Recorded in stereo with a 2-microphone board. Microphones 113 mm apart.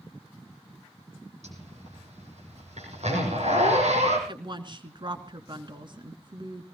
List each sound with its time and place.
1.4 s a zipper: 80° right, 7.5 m
4.3 s a woman speaking: 45° right (ahead or behind), 2.5 m